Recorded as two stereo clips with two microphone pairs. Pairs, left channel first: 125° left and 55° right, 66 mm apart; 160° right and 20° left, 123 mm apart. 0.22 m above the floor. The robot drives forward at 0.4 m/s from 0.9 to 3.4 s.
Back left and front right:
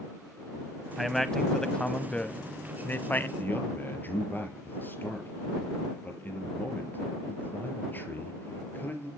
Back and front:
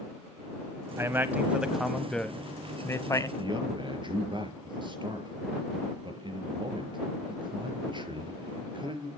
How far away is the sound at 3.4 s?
About 5 m.